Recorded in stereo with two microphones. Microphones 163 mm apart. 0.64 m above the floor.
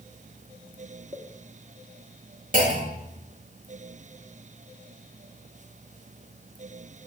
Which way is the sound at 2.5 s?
55° right (ahead or behind).